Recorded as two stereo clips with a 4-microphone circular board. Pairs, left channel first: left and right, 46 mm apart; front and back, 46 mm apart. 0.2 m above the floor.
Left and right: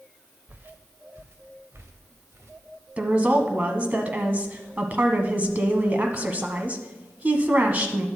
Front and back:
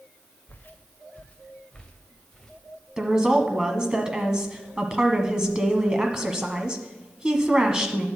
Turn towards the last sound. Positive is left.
turn(degrees=-115)